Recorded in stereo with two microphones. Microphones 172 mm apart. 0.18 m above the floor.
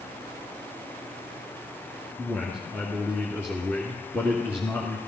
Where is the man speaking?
10° left (ahead or behind), 2 m.